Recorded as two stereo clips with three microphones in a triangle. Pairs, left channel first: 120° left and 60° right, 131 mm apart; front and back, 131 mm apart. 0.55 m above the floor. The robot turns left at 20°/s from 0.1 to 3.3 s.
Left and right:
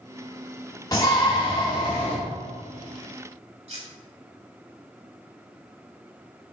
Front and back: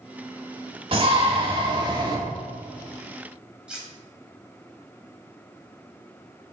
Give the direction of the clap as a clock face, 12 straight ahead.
I don't hear a clap.